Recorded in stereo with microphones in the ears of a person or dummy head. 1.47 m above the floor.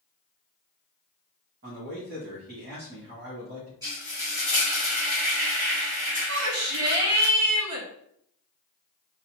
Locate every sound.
1.6 s a man speaking: 50° right (ahead or behind), 2.5 m
3.8 s frying: 20° right (ahead or behind), 1.9 m
6.3 s a shout: 75° right (ahead or behind), 1.6 m